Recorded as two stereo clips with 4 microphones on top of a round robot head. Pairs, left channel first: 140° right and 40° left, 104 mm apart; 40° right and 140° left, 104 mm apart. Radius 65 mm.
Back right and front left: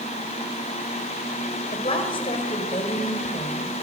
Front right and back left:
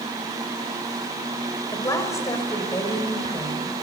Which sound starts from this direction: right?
A woman speaking, at 1.7 s.